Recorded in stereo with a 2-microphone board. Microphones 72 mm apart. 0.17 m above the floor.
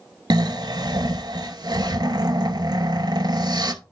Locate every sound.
0.3 s snoring: 70° right (ahead or behind), 0.6 m